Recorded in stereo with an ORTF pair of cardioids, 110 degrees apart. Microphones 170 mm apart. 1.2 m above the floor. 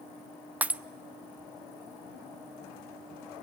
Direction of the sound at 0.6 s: 10° right.